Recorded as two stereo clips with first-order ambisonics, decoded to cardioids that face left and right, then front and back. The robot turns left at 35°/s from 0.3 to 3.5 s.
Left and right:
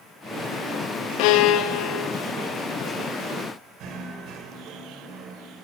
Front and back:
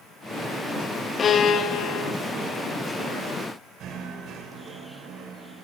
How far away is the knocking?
About 2.5 m.